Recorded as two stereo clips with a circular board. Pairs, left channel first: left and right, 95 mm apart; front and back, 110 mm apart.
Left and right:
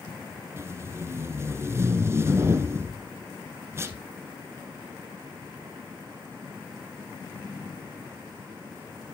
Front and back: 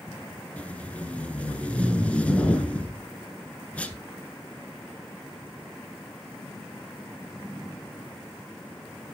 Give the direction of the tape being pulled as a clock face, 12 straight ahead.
2 o'clock.